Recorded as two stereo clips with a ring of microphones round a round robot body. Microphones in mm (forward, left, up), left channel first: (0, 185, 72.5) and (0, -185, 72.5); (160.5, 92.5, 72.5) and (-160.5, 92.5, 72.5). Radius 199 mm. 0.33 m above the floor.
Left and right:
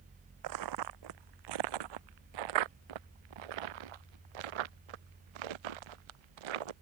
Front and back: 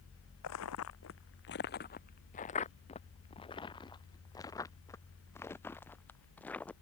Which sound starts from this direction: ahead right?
Footsteps, at 0.4 s.